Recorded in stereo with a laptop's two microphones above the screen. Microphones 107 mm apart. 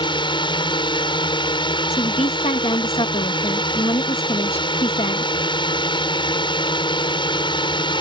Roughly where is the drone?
Left.